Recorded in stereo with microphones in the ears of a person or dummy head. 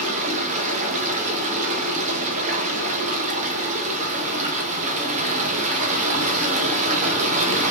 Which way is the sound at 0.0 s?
40° right (ahead or behind).